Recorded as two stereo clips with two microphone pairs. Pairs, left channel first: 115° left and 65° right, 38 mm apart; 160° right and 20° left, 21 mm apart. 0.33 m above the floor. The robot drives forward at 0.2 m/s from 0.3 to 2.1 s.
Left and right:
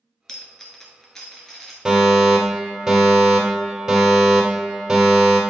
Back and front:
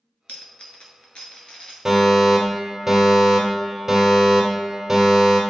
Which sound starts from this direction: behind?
A dropped coin, at 0.3 s.